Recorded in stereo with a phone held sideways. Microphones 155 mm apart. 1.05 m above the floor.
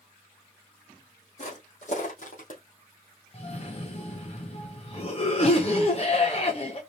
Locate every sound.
1.4 s footsteps: 50° left (ahead or behind), 3 m; by 2.6 s 55° left (ahead or behind), 2.5 m
3.3 s a cough: 40° left (ahead or behind), 1.0 m